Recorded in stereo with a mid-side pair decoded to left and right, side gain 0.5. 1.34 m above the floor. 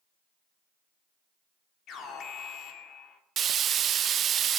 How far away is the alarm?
About 3 m.